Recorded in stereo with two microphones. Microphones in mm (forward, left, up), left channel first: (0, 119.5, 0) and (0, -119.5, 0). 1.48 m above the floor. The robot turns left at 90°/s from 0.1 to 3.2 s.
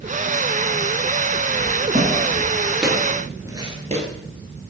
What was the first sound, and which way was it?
Footsteps, 50° right (ahead or behind).